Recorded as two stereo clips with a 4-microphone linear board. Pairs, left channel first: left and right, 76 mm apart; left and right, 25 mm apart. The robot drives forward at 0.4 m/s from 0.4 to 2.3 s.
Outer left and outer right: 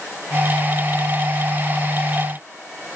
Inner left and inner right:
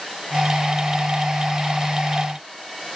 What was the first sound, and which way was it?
Only background noise.